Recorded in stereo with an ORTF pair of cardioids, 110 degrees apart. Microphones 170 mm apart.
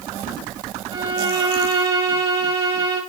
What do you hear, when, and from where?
0.9 s a violin: 30° right, 3 m